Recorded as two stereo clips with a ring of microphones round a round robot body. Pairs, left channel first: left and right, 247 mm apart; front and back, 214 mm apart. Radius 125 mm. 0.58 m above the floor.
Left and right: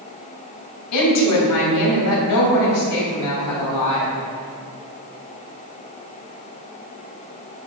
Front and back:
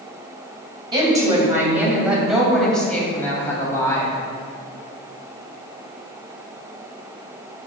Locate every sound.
0.9 s a woman speaking: 110° left, 3 m; by 4.1 s 75° left, 3.5 m